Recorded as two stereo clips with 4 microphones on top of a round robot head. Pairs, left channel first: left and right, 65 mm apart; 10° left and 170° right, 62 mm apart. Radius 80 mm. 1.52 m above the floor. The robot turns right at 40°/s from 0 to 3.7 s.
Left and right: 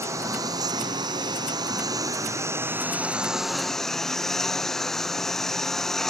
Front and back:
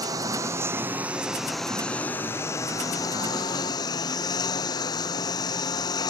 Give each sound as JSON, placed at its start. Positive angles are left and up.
{"t": 0.0, "sound": "a lawn mower", "azimuth_deg": -140}